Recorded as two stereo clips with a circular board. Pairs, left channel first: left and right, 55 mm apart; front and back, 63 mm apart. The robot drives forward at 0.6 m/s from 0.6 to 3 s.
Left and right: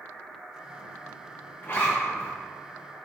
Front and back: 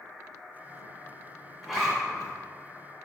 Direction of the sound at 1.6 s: 95° left.